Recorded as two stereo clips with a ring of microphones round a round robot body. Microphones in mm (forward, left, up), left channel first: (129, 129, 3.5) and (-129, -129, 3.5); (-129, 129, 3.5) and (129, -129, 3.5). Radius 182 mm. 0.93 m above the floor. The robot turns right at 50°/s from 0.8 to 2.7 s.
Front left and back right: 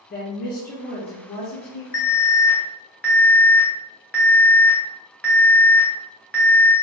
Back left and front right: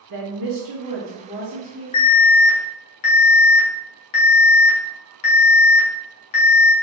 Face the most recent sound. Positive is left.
turn(degrees=130)